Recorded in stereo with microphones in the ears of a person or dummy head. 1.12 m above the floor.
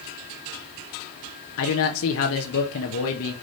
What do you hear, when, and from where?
1.6 s a man speaking: 75° left (ahead or behind), 1.1 m